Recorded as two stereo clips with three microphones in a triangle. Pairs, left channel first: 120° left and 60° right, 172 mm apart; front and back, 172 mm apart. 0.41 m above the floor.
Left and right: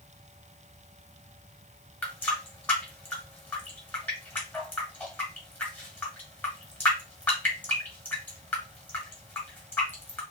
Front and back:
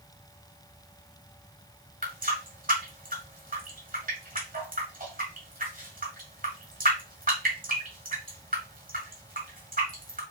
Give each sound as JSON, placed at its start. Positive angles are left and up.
{"t": 2.0, "sound": "a running tap", "azimuth_deg": -160, "distance_m": 1.3}